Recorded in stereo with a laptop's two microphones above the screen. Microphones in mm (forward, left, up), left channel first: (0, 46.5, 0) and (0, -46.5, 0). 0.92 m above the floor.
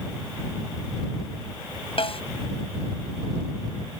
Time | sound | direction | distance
2.0 | a snare drum | 65° left (ahead or behind) | ?